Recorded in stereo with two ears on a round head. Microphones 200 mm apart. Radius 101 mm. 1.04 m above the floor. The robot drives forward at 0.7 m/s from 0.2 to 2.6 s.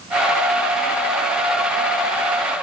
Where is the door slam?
No door slam in this recording.